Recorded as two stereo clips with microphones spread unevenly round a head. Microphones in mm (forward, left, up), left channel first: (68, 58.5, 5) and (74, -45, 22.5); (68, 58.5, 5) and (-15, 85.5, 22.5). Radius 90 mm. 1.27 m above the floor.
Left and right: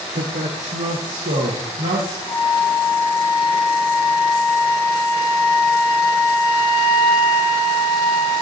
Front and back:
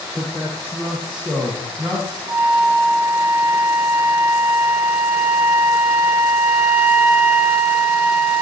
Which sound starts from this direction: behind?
A flute, at 2.3 s.